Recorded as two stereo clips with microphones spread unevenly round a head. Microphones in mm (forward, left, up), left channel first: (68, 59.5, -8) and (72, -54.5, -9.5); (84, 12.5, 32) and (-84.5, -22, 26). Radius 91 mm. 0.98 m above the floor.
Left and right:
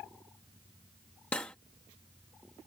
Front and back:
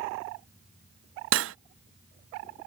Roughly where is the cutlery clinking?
Behind.